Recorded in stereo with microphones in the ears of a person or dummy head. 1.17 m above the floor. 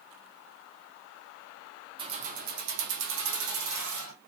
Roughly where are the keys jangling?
Right.